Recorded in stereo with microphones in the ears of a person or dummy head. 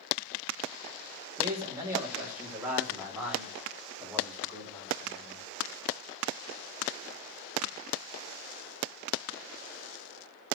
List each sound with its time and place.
1.4 s a man speaking: 15° right (ahead or behind), 2.5 m; by 5.5 s 15° left (ahead or behind), 5 m